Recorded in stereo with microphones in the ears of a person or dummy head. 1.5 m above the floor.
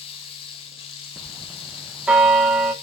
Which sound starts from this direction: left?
Running water, at 0.0 s.